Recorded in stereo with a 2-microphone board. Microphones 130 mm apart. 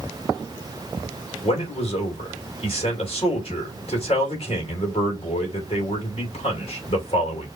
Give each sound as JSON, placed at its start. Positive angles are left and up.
{"t": 1.4, "sound": "a man speaking", "side_deg": 50, "distance_m": 3.0}